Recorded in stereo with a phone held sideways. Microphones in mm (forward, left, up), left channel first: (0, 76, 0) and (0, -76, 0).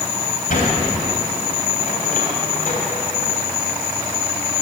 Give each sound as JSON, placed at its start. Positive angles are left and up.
{"t": 0.5, "sound": "a sliding door", "side_deg": 65, "distance_m": 3.0}